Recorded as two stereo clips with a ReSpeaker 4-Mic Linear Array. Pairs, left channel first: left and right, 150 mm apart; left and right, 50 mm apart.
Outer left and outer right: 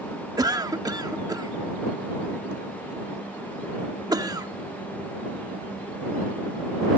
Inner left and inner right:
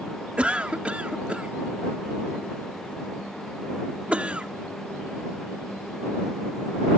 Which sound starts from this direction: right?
A cough, at 0.4 s.